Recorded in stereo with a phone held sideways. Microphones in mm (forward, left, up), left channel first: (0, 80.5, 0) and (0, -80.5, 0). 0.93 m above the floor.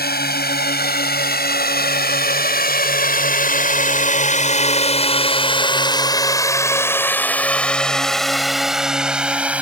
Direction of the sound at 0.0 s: 80° left.